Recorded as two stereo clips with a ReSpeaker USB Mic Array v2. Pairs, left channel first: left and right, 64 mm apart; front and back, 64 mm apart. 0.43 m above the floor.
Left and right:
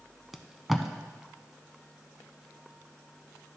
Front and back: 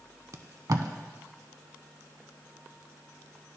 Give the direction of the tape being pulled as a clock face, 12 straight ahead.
6 o'clock.